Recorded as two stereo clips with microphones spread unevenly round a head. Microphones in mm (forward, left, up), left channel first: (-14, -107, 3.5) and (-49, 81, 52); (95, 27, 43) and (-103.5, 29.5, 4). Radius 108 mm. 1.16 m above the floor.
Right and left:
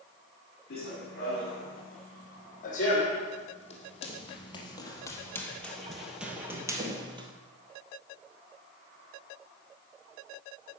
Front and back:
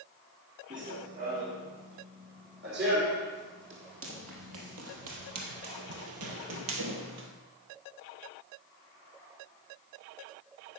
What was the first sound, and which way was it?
Running footsteps, 125° right.